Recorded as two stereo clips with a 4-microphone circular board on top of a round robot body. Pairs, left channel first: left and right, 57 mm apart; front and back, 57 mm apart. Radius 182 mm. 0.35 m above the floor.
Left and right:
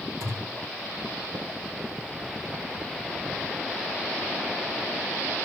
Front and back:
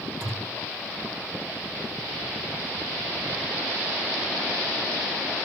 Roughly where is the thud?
Right.